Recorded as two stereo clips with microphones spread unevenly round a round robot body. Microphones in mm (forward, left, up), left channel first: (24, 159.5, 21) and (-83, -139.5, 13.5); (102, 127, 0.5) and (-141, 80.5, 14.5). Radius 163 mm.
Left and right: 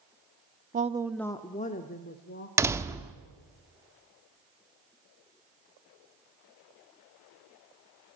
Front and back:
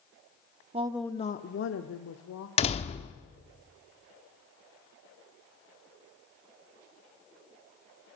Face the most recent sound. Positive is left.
turn(degrees=-35)